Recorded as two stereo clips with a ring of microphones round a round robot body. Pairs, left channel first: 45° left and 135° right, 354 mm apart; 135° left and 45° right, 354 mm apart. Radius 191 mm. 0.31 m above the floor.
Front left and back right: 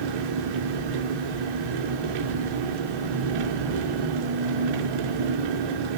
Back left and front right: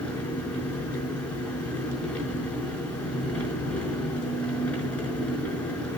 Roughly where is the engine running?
Behind right.